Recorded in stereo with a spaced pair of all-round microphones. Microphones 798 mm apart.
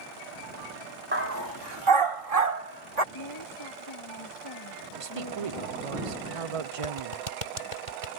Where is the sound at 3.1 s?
35° left (ahead or behind).